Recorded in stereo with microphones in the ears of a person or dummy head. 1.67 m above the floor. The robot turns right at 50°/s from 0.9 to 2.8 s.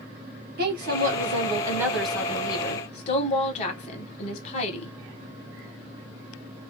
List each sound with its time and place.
0.6 s a woman speaking: 60° right, 1.7 m; by 4.9 s 35° left, 1.7 m